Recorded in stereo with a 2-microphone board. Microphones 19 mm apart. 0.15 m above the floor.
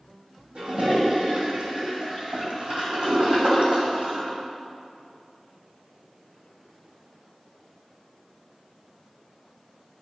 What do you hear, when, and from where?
0.6 s a toilet flushing: 65° right (ahead or behind), 2 m